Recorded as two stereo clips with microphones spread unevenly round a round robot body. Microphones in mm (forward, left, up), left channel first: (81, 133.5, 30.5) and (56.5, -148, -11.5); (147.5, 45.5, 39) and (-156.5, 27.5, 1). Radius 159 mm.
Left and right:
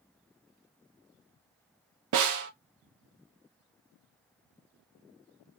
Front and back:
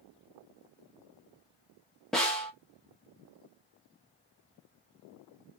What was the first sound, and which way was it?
A snare drum, 90° right.